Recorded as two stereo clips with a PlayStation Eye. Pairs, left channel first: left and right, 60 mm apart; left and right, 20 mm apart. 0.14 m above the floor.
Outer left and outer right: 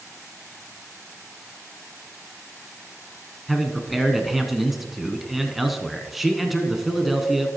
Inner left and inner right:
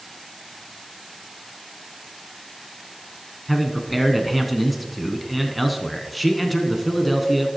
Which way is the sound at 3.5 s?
5° right (ahead or behind).